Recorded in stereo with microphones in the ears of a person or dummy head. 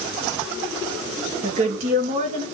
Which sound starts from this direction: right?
A woman speaking, at 1.4 s.